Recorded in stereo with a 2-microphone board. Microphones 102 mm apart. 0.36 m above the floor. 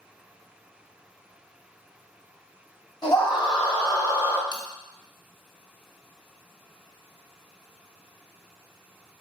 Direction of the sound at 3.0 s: 45° left (ahead or behind).